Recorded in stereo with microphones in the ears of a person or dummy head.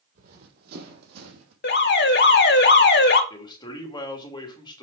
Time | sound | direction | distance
0.1 | running footsteps | 55° right (ahead or behind) | 3 m
1.6 | an alarm | 50° left (ahead or behind) | 2 m
3.3 | a man speaking | 20° left (ahead or behind) | 2.5 m